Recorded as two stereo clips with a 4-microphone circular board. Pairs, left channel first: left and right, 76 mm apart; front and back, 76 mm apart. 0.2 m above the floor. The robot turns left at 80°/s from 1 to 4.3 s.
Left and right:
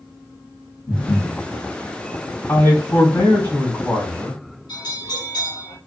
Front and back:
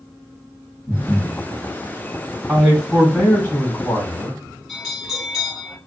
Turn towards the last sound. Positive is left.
turn(degrees=90)